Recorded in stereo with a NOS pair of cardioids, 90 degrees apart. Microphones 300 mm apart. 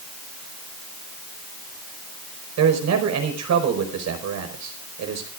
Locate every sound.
2.6 s a man speaking: 65° right, 5 m